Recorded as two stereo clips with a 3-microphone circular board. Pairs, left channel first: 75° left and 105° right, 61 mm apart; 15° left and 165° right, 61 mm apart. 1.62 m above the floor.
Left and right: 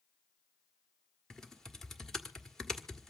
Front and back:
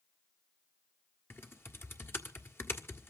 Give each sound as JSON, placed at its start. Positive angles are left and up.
{"t": 1.3, "sound": "typing on a keyboard", "azimuth_deg": -5, "distance_m": 1.6}